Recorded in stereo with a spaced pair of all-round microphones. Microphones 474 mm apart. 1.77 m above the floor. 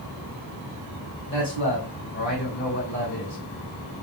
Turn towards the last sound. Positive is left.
turn(degrees=25)  # may be behind; listen again after turning